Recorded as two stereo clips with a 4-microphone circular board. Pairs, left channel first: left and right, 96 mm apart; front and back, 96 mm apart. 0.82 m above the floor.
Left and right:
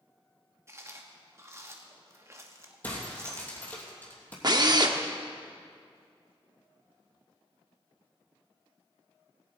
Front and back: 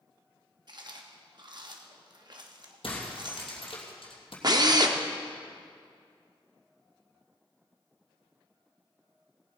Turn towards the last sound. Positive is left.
turn(degrees=-135)